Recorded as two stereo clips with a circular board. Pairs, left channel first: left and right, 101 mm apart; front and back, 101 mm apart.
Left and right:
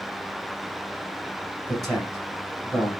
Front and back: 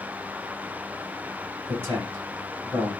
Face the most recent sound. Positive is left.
turn(degrees=180)